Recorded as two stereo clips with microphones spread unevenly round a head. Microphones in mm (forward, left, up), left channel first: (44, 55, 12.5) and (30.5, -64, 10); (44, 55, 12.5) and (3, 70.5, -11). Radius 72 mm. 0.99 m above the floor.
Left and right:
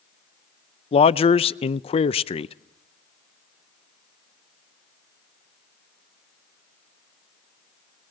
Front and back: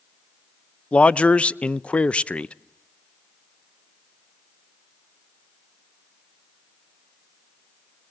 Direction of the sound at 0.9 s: 65° left.